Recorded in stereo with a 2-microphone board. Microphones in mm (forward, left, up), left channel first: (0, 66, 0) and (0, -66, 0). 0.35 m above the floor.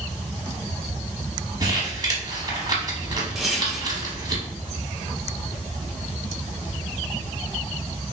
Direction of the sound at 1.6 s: 30° right (ahead or behind).